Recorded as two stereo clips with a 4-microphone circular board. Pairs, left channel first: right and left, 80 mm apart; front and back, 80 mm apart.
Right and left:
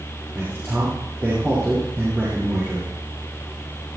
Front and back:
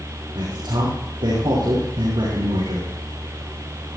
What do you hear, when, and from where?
0.3 s a man speaking: 155° left, 6.5 m